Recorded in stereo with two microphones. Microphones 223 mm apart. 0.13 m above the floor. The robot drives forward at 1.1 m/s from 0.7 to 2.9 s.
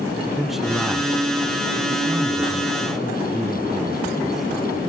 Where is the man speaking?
Centre (ahead or behind), 1.1 m.